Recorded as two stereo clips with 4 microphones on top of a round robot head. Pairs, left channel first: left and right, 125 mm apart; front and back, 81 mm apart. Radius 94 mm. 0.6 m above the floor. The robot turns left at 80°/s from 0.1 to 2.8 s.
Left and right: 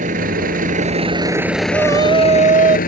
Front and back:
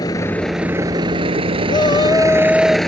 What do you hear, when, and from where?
0.0 s a vehicle: 60° right; by 2.9 s 85° left
1.7 s a shout: 15° right; by 2.8 s 105° right